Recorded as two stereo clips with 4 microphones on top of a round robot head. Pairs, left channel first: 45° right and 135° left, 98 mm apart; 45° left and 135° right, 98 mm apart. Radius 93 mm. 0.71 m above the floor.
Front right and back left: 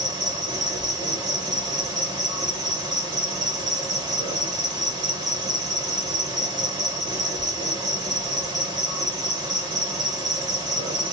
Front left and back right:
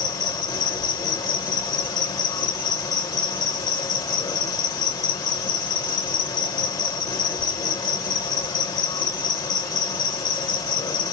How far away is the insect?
About 1.6 m.